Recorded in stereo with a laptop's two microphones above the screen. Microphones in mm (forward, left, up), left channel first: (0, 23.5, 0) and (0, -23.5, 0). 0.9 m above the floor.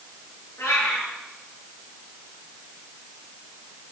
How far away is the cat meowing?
About 5.5 m.